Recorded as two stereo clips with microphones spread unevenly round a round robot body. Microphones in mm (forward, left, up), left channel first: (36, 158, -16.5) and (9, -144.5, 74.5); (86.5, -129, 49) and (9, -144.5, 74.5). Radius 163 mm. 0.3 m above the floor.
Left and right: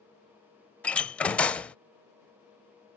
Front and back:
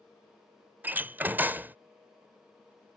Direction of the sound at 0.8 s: 110° left.